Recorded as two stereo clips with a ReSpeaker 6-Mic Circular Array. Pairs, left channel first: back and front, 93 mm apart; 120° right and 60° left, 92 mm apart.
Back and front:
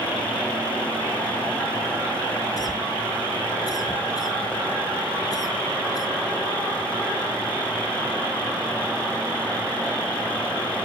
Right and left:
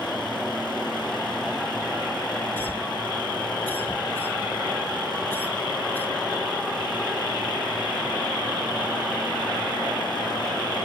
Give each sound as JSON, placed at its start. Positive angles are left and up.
{"t": 2.6, "sound": "a cough", "azimuth_deg": 180, "distance_m": 2.5}